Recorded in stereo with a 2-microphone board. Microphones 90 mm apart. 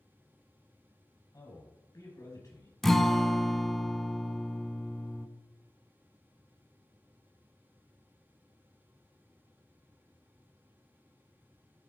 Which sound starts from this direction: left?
A man speaking, at 1.3 s.